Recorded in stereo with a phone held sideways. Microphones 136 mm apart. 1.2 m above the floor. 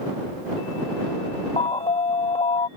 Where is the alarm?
45° left (ahead or behind).